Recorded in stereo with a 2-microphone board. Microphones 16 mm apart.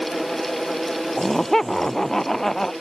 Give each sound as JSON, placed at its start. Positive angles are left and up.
{"t": 1.2, "sound": "laughter", "side_deg": 20}